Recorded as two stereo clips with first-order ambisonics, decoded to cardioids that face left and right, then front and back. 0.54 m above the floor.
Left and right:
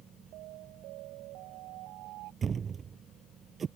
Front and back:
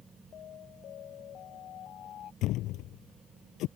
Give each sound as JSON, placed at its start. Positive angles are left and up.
{"t": 0.3, "sound": "an alarm", "azimuth_deg": -55}
{"t": 2.4, "sound": "a thud", "azimuth_deg": -30}